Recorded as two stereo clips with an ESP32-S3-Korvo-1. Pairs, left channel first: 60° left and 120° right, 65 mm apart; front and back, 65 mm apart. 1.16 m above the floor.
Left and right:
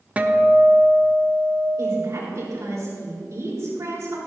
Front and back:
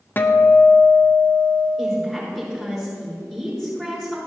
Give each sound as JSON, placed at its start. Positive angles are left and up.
{"t": 0.2, "sound": "a guitar", "azimuth_deg": -55, "distance_m": 0.7}
{"t": 1.8, "sound": "a woman speaking", "azimuth_deg": -85, "distance_m": 4.0}